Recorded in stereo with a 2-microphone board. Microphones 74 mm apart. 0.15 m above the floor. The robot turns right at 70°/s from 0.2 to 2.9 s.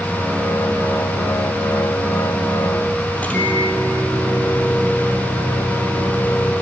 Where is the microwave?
20° left (ahead or behind), 3.5 m.